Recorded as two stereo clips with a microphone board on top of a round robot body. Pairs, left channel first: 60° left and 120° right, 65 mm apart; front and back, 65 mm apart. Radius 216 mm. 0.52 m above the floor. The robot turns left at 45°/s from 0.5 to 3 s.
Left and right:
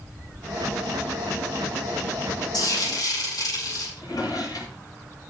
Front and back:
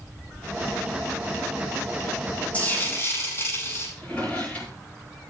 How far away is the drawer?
About 7.5 m.